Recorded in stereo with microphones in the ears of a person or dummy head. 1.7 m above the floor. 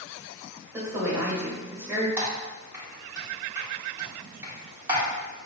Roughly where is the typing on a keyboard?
Right.